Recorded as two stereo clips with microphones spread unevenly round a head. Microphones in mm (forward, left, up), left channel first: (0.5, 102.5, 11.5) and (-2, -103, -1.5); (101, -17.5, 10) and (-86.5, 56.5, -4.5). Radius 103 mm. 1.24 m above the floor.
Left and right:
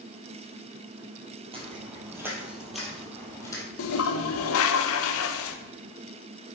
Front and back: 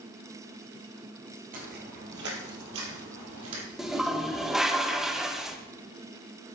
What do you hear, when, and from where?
1.5 s footsteps: 155° right, 2 m; by 3.6 s 160° left, 2.5 m
3.8 s a toilet flushing: 70° left, 0.7 m